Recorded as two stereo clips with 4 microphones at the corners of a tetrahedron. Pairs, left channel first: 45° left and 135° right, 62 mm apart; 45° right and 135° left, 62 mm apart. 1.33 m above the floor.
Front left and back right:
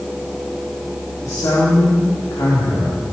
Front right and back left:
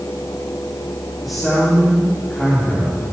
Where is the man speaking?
45° left, 4 m.